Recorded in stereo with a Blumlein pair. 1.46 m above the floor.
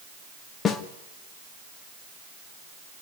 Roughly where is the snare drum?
Ahead.